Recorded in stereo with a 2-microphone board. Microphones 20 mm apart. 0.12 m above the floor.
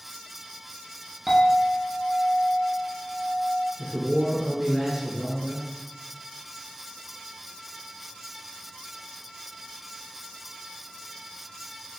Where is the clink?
15° right (ahead or behind), 1.1 m.